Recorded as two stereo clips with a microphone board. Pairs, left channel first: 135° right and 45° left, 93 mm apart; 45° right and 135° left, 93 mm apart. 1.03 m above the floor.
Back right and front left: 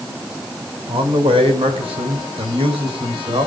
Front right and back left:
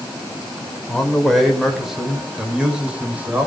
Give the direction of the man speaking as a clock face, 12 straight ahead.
11 o'clock.